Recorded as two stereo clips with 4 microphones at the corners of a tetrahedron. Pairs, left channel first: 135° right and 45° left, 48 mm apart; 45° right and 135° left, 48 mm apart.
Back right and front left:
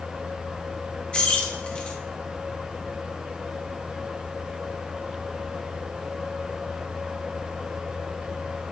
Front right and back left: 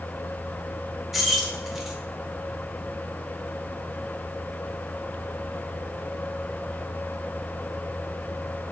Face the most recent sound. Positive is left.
turn(degrees=-145)